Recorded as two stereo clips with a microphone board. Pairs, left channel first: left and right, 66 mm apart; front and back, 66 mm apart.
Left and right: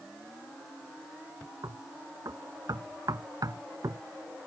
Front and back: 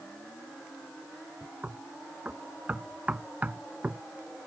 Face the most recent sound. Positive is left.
turn(degrees=-110)